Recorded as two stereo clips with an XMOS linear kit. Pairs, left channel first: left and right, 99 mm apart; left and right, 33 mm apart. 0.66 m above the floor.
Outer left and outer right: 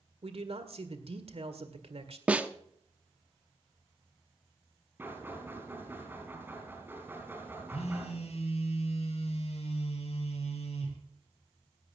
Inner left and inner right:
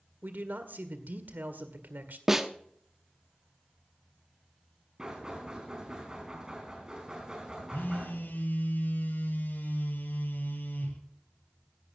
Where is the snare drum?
10° right (ahead or behind), 0.8 m.